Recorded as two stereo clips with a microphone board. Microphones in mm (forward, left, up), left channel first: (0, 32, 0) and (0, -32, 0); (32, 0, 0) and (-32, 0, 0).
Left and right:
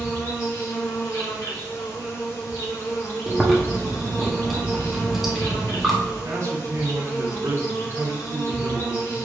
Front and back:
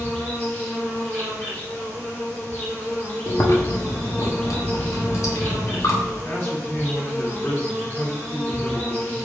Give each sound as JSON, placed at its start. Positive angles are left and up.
{"t": 0.0, "sound": "an insect", "azimuth_deg": 55, "distance_m": 1.8}
{"t": 3.3, "sound": "chewing", "azimuth_deg": -5, "distance_m": 0.9}
{"t": 6.2, "sound": "a man speaking", "azimuth_deg": -45, "distance_m": 1.2}